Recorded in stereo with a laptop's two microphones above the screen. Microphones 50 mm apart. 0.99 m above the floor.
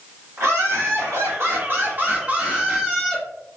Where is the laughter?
70° right (ahead or behind), 1.6 m; by 3.2 s 5° right (ahead or behind), 1.2 m.